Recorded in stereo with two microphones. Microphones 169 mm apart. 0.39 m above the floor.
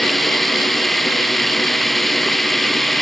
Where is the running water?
Centre (ahead or behind).